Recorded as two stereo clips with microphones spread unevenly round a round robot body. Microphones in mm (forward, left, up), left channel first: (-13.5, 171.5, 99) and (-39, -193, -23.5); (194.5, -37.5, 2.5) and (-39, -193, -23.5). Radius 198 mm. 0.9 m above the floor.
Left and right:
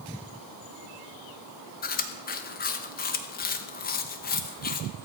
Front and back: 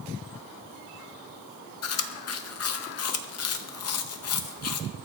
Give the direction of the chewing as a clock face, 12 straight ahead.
12 o'clock.